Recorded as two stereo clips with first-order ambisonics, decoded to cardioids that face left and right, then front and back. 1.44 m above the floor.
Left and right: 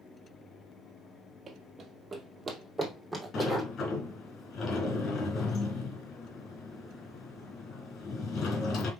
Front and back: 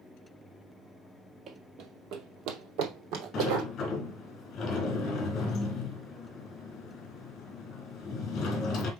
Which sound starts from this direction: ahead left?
A sliding door, at 3.3 s.